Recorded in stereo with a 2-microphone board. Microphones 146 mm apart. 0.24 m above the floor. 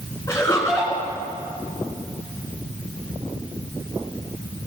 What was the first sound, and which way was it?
Laughter, 20° left (ahead or behind).